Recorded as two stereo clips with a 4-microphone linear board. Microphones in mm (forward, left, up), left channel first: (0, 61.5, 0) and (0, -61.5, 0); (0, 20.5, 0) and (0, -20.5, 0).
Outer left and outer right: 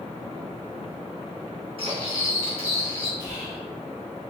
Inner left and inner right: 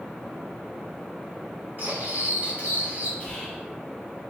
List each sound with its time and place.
1.8 s cutlery clinking: 50° right (ahead or behind), 1.8 m
3.2 s whispering: 30° left (ahead or behind), 1.6 m